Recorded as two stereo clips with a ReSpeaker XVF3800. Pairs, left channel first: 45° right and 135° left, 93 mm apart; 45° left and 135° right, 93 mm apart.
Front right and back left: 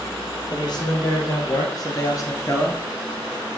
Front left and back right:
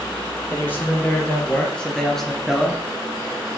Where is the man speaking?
20° right, 3 m; by 2.8 s 60° right, 1.8 m.